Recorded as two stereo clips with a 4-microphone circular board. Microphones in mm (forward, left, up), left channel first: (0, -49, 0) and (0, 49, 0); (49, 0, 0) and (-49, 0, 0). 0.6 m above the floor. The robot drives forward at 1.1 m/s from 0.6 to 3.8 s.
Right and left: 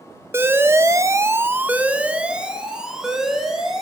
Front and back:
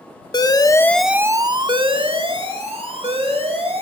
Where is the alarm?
30° left, 0.7 m; by 3.8 s 175° left, 3 m.